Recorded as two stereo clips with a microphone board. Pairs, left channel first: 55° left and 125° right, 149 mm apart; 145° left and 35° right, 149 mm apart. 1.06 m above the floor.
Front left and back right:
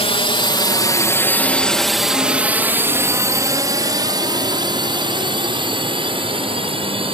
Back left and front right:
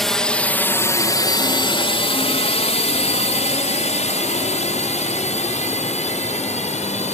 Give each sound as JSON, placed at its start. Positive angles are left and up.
{"t": 0.0, "sound": "a drone", "azimuth_deg": 60}